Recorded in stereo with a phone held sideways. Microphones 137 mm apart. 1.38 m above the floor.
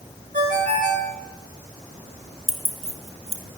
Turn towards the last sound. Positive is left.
turn(degrees=-50)  # may be behind; listen again after turning